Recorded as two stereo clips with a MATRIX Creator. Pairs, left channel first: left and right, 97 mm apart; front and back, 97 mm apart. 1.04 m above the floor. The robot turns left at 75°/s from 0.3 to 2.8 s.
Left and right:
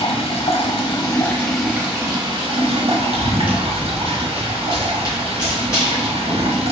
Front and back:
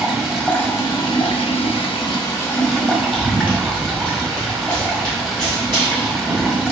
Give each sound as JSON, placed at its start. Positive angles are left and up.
{"t": 0.0, "sound": "running water", "azimuth_deg": 95, "distance_m": 1.0}
{"t": 3.1, "sound": "running footsteps", "azimuth_deg": 95, "distance_m": 2.0}